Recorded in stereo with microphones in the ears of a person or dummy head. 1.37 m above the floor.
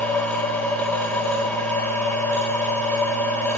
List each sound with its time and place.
0.0 s a machine running: 10° left (ahead or behind), 1.1 m